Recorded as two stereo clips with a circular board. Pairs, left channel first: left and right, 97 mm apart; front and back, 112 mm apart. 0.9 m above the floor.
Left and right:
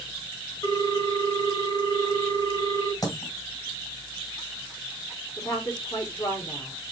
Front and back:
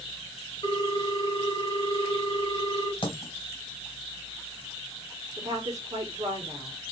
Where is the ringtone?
40° left, 1.9 m.